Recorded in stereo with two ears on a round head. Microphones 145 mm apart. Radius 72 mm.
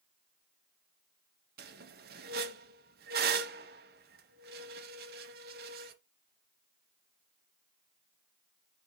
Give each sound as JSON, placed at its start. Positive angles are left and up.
{"t": 1.6, "sound": "a squeak", "side_deg": -65, "distance_m": 1.0}